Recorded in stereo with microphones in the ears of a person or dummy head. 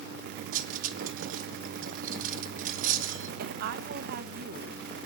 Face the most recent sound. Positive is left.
turn(degrees=-60)  # may be behind; listen again after turning